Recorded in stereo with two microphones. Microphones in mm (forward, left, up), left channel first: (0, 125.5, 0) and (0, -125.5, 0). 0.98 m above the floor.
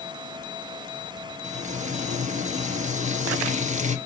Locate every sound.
1.4 s frying: 25° right (ahead or behind), 1.3 m